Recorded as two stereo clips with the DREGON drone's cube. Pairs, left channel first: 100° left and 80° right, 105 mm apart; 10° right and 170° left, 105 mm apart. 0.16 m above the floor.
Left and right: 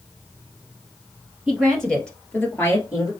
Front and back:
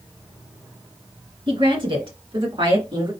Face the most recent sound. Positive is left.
turn(degrees=140)